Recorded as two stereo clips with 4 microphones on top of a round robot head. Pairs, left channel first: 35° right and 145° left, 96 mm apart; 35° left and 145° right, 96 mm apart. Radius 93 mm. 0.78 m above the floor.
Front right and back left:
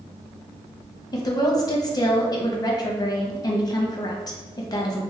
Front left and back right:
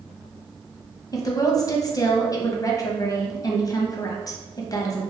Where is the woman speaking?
Straight ahead, 0.8 m.